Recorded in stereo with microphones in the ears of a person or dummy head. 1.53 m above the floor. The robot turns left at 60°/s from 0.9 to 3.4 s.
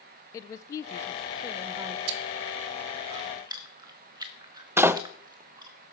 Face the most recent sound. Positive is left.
turn(degrees=-10)  # may be behind; listen again after turning